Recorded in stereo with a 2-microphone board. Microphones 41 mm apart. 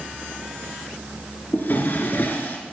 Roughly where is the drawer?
Left.